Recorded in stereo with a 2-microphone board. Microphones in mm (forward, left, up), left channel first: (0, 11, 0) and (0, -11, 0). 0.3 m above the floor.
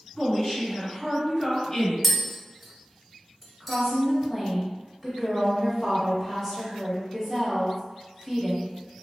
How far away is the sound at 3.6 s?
About 1.2 m.